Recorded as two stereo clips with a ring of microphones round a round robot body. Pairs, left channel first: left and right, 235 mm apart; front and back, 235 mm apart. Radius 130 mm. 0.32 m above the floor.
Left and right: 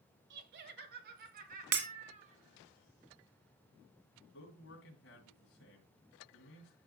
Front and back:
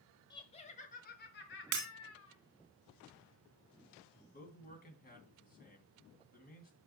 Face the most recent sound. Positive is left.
turn(degrees=45)